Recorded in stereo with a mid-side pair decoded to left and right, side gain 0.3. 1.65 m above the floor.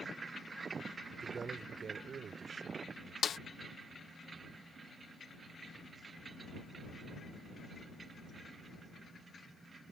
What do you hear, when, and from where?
1.1 s a man speaking: 60° right; by 3.1 s 75° right
3.2 s a snare drum: 70° left